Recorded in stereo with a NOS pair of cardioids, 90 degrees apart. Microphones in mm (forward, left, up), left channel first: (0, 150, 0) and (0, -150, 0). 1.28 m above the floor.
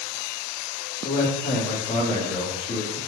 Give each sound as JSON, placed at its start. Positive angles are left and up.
{"t": 1.0, "sound": "a man speaking", "azimuth_deg": 30, "distance_m": 1.4}